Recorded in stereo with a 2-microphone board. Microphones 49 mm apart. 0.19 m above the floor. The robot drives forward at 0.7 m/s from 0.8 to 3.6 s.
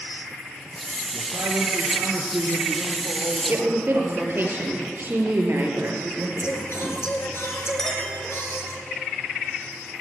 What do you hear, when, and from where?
1.1 s a man speaking: 70° right (ahead or behind), 2.5 m; by 4.5 s 50° right (ahead or behind), 3 m
3.5 s a woman speaking: 50° right (ahead or behind), 3.5 m
6.4 s singing: 60° left (ahead or behind), 3 m
7.8 s a clink: 10° left (ahead or behind), 5 m